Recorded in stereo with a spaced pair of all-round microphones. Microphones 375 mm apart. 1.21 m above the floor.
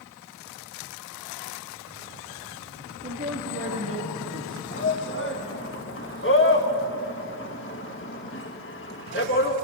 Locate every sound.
3.0 s a man speaking: 35° right (ahead or behind), 1.8 m
4.7 s a shout: 30° left (ahead or behind), 1.7 m